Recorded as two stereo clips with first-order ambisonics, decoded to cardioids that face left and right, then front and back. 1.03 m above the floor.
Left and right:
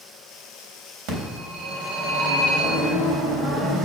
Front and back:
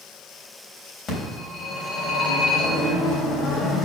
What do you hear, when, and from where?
1.1 s a phone ringing: 65° right, 3.5 m